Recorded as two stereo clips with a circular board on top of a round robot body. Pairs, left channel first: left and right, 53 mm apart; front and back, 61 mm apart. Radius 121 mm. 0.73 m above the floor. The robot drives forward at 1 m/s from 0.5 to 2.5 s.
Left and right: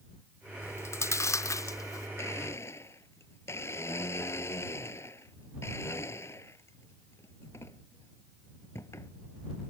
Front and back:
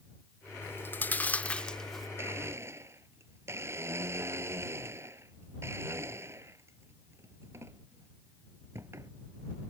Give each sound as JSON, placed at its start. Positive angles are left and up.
{"t": 0.6, "sound": "chewing", "azimuth_deg": 50}
{"t": 2.2, "sound": "a blender", "azimuth_deg": 130}